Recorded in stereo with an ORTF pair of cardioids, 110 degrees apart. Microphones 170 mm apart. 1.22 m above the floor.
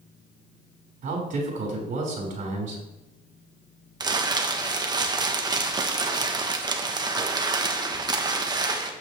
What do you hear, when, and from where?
1.0 s a man speaking: 50° right, 5 m
4.0 s crumpling: 25° right, 1.2 m